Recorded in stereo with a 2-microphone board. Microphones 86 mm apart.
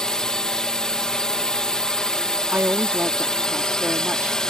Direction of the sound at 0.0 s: 10° left (ahead or behind).